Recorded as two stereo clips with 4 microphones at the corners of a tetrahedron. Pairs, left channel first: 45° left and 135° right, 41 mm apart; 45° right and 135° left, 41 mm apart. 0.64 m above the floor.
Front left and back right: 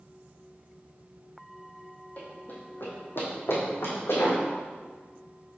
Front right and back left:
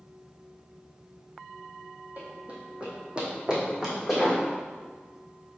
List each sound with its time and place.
2.2 s running footsteps: 90° left, 1.8 m; by 4.4 s 55° left, 2.5 m